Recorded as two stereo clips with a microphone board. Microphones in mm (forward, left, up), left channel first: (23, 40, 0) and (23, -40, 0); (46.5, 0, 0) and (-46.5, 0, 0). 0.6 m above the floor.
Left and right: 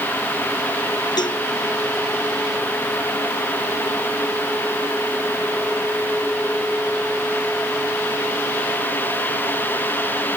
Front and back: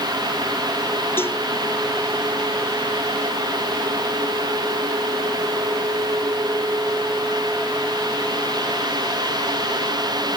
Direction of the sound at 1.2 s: 65° left.